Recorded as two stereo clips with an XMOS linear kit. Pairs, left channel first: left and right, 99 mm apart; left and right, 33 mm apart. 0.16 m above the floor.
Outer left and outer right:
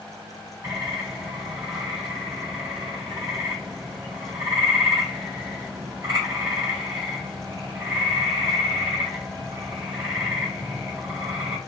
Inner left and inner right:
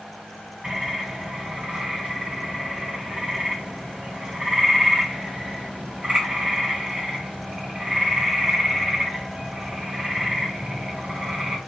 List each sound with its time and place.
0.6 s a bird: 45° right (ahead or behind), 1.7 m